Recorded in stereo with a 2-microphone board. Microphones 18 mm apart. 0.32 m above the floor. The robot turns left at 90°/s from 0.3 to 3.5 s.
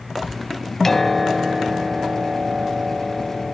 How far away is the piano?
About 1.0 m.